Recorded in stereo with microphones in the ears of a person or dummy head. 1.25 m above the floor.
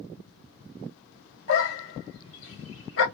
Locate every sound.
1.5 s a dog barking: 60° left (ahead or behind), 1.6 m